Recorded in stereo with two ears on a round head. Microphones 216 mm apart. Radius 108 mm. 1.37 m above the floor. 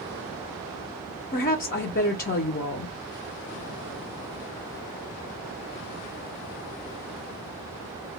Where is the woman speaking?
40° left (ahead or behind), 0.5 m.